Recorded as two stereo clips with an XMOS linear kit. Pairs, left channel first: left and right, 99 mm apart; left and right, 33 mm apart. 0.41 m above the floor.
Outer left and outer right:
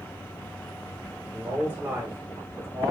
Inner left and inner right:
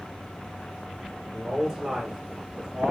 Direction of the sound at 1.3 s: 15° right (ahead or behind).